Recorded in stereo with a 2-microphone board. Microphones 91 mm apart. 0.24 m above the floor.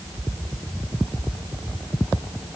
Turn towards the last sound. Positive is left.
No sound to turn to.